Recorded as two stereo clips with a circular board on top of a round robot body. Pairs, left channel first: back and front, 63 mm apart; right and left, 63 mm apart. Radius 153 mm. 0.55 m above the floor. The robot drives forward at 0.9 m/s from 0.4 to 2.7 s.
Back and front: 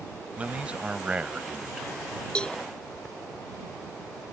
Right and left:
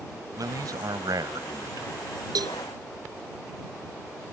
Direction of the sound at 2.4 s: 105° left.